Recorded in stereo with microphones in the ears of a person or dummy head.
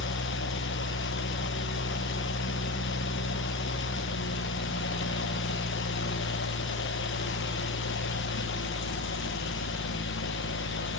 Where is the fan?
55° left (ahead or behind), 0.8 m.